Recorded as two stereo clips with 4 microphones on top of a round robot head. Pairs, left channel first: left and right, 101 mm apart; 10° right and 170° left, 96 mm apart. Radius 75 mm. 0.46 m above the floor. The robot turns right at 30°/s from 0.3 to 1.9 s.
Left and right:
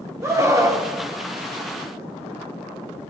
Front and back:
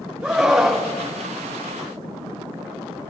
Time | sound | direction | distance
0.2 | a scream | 120° right | 1.4 m